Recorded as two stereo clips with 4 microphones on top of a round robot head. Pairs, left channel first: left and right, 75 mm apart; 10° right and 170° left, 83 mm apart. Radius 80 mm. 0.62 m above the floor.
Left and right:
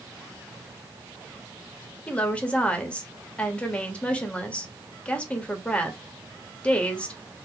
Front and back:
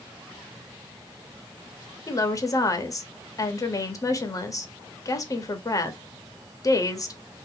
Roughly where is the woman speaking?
Ahead.